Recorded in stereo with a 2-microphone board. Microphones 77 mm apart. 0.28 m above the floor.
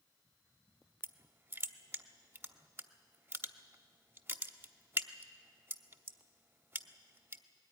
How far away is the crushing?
About 0.9 m.